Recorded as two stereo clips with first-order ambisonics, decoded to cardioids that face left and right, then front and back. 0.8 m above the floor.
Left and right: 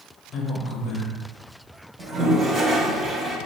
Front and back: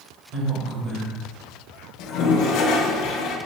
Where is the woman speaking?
140° left, 1.2 m.